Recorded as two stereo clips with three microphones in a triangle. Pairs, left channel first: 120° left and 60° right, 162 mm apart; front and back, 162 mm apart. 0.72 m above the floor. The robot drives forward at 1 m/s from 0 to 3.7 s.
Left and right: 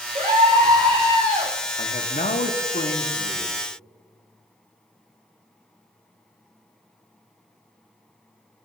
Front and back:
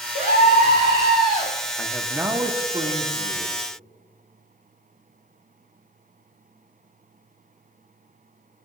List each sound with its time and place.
0.1 s a scream: 15° right, 3.5 m; by 1.5 s 25° right, 2 m
1.8 s a man speaking: 80° left, 1.0 m; by 3.6 s 150° left, 2.0 m